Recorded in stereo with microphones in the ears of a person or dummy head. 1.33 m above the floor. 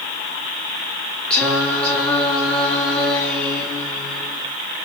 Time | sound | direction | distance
1.3 | singing | 5° left (ahead or behind) | 1.7 m